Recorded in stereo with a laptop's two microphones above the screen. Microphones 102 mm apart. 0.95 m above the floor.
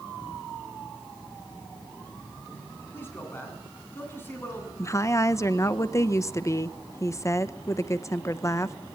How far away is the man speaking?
About 9.5 m.